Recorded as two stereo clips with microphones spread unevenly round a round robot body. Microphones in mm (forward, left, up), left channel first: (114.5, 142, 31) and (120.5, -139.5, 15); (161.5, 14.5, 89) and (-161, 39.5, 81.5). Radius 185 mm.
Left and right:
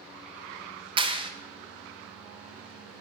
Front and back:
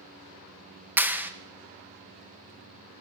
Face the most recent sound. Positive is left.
turn(degrees=-110)